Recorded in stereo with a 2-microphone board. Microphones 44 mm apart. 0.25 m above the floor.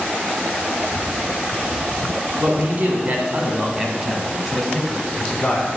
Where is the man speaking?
45° right (ahead or behind), 2.0 m; by 5.7 s 20° left (ahead or behind), 1.8 m.